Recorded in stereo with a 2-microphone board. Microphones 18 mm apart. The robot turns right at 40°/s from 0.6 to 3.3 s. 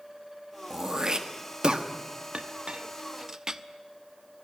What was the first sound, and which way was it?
Throat clearing, 25° right (ahead or behind).